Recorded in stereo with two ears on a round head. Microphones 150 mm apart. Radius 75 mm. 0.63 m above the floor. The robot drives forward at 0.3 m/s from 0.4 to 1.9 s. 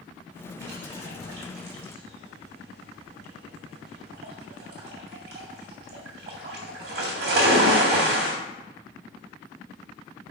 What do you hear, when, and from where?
0.6 s a splash: 75° right (ahead or behind), 1.8 m; by 8.3 s 65° right (ahead or behind), 1.9 m